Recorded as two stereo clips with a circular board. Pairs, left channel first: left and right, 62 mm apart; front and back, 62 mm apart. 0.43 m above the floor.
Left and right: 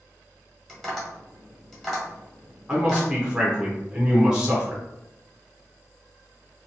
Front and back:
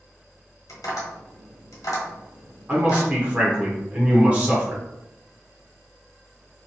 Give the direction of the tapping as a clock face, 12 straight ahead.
12 o'clock.